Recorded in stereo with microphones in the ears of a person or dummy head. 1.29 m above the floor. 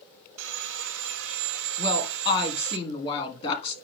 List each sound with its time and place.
0.4 s sawing: 65° right (ahead or behind), 1.2 m
1.8 s a woman speaking: 30° left (ahead or behind), 1.6 m